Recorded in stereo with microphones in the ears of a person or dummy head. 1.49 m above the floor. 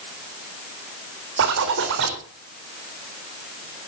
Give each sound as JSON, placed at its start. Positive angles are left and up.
{"t": 1.4, "sound": "a zipper", "side_deg": -65, "distance_m": 3.5}